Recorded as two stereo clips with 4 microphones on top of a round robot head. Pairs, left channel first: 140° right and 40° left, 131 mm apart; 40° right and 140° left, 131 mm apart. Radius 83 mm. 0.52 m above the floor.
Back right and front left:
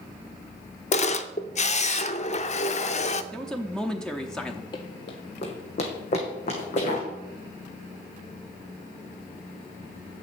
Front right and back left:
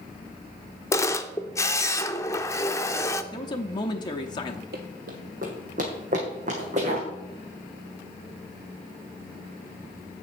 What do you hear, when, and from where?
0.9 s a camera shutter: 110° right, 0.6 m
3.3 s a man speaking: 60° right, 0.8 m
4.7 s running footsteps: 160° left, 1.2 m; by 7.1 s straight behind, 3 m